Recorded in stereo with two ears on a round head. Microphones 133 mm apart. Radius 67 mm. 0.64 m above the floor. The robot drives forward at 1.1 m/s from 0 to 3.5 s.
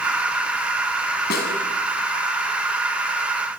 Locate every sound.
1.3 s a snare drum: 70° left (ahead or behind), 6.5 m; by 1.5 s 65° left (ahead or behind), 6.5 m